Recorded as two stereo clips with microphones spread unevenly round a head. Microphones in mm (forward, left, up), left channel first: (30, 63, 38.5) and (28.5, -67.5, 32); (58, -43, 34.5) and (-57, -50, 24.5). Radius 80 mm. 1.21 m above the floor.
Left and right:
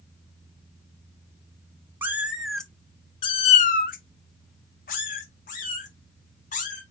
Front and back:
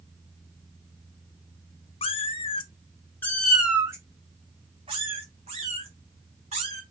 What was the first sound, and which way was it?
A cat meowing, 15° right.